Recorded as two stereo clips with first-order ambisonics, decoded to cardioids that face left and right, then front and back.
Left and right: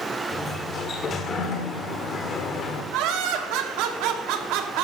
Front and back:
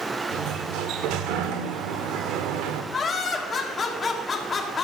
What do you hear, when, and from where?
0.3 s a sliding door: 150° left, 1.3 m
2.9 s laughter: 65° right, 1.7 m